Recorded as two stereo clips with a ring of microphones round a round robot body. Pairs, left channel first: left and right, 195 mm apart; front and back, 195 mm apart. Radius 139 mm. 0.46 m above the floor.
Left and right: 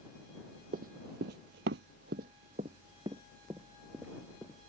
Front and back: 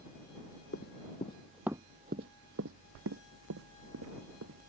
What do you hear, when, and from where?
0.7 s running footsteps: 45° right; by 4.7 s straight behind